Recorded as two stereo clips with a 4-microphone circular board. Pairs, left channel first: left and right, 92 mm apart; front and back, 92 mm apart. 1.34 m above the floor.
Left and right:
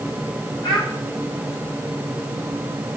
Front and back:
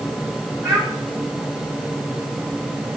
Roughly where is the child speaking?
Behind left.